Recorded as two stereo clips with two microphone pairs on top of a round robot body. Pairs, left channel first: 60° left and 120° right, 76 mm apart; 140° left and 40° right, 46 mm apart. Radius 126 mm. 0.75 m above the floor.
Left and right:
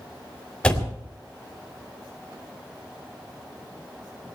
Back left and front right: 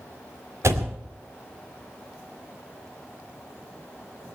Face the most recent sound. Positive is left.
turn(degrees=-20)